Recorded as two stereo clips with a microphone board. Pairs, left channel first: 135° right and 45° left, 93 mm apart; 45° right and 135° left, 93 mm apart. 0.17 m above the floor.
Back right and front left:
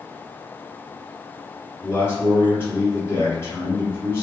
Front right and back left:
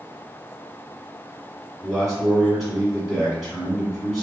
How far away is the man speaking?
About 1.4 m.